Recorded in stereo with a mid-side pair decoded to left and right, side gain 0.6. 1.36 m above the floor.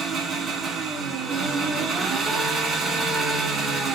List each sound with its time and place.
0.0 s an engine running: 35° right, 1.5 m